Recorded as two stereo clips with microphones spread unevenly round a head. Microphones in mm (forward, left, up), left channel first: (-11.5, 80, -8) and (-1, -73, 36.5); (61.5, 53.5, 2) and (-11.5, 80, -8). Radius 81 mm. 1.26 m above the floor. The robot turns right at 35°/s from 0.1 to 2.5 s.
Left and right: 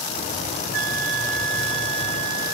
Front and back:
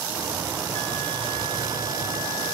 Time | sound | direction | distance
0.7 | a flute | 90° right | 0.9 m